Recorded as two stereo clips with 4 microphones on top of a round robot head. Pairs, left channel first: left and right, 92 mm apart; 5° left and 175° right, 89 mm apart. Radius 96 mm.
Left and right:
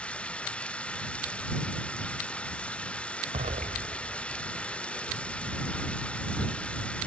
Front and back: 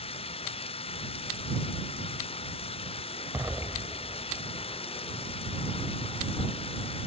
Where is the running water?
10° left.